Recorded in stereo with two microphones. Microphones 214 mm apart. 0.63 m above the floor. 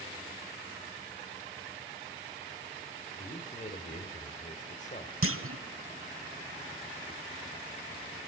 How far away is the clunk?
About 1.0 m.